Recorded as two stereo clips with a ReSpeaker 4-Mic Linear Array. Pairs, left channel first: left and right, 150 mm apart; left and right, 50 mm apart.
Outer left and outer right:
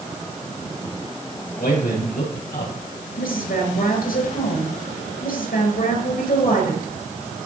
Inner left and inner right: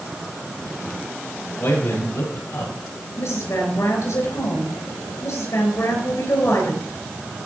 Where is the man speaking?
70° left (ahead or behind), 6.5 m; by 2.7 s 75° left (ahead or behind), 7 m.